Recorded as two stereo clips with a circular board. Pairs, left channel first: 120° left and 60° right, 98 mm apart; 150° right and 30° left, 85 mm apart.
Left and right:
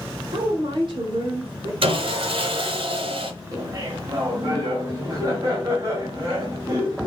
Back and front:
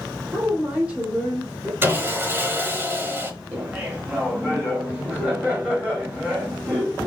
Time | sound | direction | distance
0.3 | a woman speaking | 40° right | 2.5 m
1.8 | sawing | 35° right | 1.1 m
3.5 | laughter | 35° right | 1.5 m